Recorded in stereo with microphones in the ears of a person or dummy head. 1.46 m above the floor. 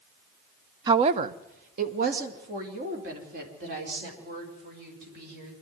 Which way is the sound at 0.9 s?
25° right (ahead or behind).